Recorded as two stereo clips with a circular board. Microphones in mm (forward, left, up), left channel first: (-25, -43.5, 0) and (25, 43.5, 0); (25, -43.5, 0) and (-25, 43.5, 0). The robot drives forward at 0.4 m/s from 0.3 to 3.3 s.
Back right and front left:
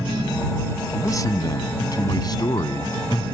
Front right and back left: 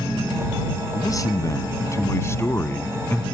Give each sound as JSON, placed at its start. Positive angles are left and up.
{"t": 0.9, "sound": "a man speaking", "azimuth_deg": -85}